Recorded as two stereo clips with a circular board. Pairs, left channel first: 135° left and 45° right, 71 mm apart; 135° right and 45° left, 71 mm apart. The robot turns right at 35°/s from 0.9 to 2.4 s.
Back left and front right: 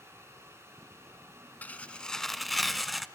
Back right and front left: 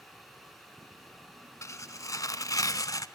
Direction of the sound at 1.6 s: 165° right.